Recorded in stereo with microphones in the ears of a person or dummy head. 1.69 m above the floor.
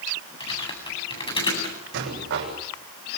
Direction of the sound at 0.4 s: 30° left (ahead or behind).